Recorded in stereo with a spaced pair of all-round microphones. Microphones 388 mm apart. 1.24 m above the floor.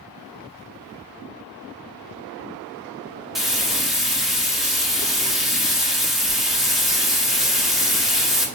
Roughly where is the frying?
Centre.